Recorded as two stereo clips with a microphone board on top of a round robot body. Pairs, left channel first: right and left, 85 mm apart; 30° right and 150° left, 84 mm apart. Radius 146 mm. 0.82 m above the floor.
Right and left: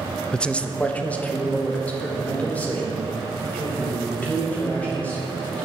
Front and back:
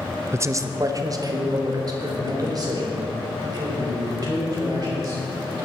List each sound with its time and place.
0.3 s a man speaking: 165° right, 0.8 m